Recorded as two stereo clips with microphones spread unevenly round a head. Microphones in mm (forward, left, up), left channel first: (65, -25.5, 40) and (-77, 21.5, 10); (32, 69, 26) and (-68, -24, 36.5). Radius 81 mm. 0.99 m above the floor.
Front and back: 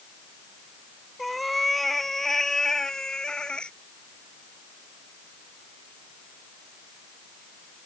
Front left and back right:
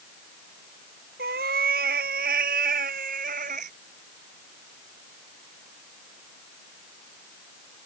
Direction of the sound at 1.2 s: 105° right.